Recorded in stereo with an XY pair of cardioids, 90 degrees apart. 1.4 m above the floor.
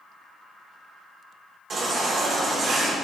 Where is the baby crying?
60° right, 3 m.